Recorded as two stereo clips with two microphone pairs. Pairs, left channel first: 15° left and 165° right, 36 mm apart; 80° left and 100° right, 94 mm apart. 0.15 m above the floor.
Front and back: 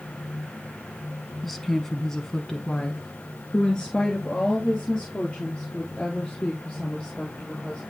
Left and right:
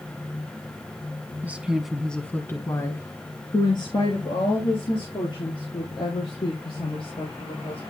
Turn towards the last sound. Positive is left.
turn(degrees=80)